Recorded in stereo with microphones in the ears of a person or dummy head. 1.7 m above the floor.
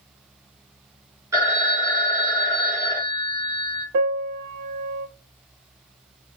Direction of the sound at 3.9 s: 50° right (ahead or behind).